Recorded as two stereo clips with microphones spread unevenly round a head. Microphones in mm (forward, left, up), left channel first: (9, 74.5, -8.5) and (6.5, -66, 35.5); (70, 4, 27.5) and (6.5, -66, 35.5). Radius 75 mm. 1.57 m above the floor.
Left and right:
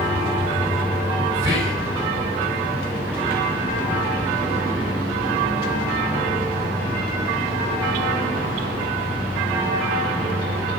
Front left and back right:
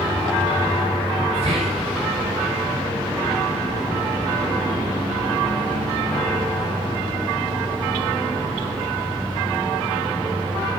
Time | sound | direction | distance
1.3 | whispering | 165° right | 6 m